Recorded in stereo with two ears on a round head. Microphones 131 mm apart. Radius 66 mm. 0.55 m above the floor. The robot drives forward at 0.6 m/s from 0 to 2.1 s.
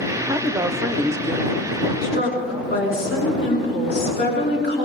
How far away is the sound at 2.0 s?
About 5.5 m.